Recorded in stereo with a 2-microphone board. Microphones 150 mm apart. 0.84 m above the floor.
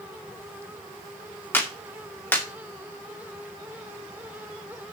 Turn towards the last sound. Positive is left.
turn(degrees=15)  # may be behind; listen again after turning